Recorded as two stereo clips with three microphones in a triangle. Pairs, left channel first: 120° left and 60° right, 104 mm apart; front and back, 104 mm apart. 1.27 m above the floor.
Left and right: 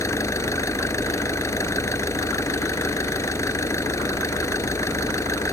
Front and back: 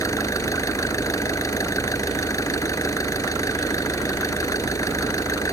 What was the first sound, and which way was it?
An engine running, 60° left.